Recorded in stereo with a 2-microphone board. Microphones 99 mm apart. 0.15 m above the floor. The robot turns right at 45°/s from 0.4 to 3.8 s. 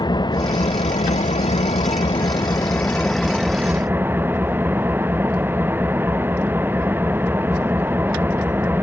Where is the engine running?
45° left; by 8.8 s 160° right.